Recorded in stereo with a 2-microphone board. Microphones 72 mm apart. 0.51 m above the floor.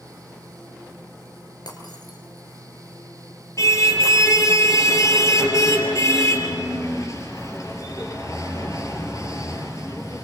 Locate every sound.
1.7 s breaking glass: 70° left (ahead or behind), 4.5 m
3.6 s a car horn: 45° left (ahead or behind), 5 m